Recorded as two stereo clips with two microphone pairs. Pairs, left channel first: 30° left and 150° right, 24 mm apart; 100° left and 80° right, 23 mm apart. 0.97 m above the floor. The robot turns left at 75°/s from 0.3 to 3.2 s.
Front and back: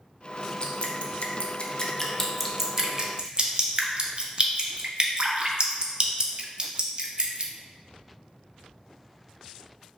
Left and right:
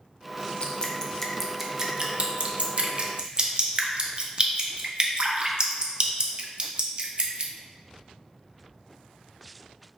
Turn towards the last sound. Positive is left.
turn(degrees=-120)